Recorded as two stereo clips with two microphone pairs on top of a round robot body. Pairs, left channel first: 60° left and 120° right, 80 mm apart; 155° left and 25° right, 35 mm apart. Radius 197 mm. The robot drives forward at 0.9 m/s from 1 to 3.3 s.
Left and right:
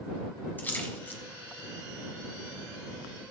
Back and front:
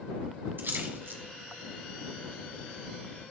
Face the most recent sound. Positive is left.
turn(degrees=-165)